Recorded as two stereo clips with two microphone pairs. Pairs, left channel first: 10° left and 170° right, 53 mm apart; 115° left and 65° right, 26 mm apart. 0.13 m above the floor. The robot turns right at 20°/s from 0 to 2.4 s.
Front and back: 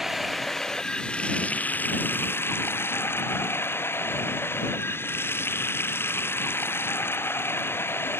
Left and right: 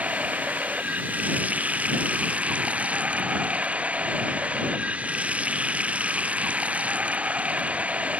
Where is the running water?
85° right; by 8.2 s 35° right.